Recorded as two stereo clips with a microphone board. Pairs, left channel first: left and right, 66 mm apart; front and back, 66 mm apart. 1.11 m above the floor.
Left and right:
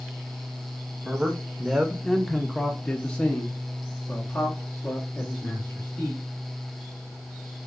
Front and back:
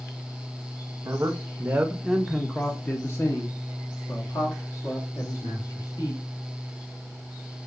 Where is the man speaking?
160° right, 0.9 m; by 6.2 s 20° left, 2.5 m.